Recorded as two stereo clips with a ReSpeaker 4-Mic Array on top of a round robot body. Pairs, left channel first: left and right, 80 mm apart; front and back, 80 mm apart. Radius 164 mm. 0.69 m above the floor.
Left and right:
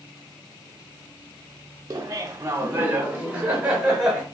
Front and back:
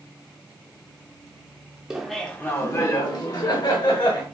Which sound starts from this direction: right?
Laughter, at 1.9 s.